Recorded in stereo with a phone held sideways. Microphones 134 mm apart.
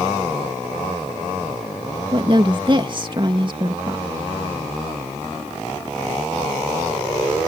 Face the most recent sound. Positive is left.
turn(degrees=-35)  # may be behind; listen again after turning